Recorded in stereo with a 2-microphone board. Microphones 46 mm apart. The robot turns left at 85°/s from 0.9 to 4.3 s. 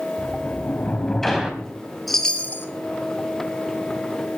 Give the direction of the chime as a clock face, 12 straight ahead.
6 o'clock.